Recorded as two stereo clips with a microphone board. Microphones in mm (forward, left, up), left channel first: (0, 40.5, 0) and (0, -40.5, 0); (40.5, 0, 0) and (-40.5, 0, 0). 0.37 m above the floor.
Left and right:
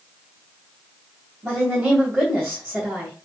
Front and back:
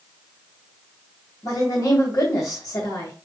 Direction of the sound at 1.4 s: 5° right.